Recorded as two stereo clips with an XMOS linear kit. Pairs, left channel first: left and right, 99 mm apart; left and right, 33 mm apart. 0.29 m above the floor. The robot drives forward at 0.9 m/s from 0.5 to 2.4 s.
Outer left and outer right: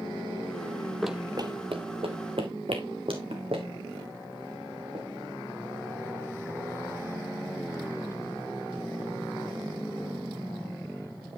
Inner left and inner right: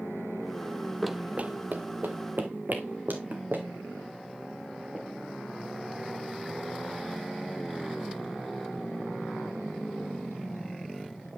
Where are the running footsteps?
Centre (ahead or behind), 0.6 m; by 5.0 s 85° right, 4 m.